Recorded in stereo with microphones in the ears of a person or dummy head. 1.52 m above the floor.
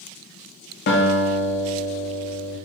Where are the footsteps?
I don't hear footsteps.